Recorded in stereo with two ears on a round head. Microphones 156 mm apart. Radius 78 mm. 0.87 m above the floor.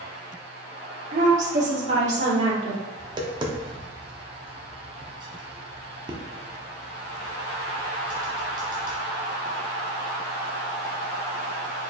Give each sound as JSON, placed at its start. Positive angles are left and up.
{"t": 1.1, "sound": "a woman speaking", "side_deg": -45, "distance_m": 1.4}
{"t": 3.0, "sound": "tapping", "side_deg": -25, "distance_m": 0.6}